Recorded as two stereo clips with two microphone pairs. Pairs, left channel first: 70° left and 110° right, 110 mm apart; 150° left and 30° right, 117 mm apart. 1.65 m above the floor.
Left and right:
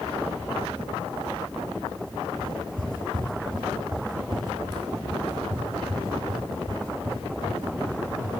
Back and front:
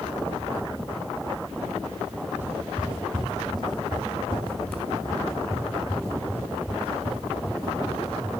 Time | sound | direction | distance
2.4 | footsteps | 100° right | 2 m